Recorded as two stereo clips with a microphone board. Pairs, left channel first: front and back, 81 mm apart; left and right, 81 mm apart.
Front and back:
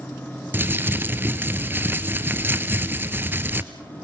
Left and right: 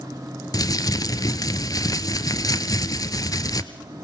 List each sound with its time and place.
0.5 s crumpling: 120° left, 1.1 m